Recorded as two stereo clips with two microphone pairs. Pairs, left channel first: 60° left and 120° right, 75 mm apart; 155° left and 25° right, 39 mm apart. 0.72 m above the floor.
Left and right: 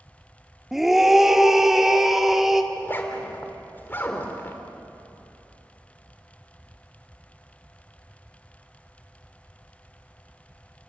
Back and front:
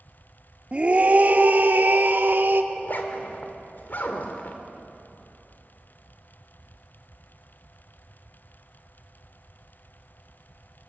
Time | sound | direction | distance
0.7 | a scream | 40° right | 1.2 m
2.7 | a zipper | 120° left | 2.5 m